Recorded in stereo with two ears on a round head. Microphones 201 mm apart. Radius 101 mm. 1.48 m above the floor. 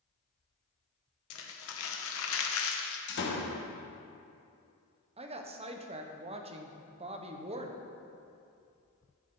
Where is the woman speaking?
30° right (ahead or behind), 0.9 m.